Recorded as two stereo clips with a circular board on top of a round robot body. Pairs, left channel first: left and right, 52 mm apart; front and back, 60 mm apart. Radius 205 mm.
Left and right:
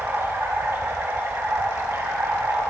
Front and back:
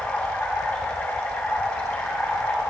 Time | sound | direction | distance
0.0 | running water | 60° right | 3 m